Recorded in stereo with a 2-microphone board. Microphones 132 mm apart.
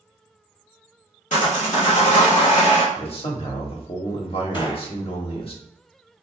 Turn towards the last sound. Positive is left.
turn(degrees=35)  # may be behind; listen again after turning